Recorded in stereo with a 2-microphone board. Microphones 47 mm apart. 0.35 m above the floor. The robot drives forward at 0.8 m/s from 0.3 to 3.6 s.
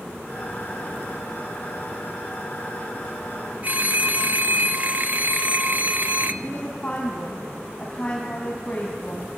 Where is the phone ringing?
35° right (ahead or behind), 0.7 m.